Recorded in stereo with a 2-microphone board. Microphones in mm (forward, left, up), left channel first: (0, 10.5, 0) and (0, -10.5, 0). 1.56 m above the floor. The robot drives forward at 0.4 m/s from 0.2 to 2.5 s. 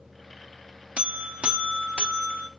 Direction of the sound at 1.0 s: 80° right.